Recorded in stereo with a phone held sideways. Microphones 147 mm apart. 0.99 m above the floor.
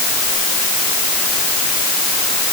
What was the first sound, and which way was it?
Only background noise.